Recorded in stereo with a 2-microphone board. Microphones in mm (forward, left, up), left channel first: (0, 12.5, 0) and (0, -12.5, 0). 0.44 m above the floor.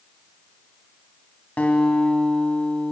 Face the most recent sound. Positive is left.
turn(degrees=80)